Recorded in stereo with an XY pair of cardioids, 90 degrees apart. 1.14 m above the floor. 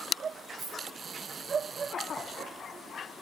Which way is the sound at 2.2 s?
50° right.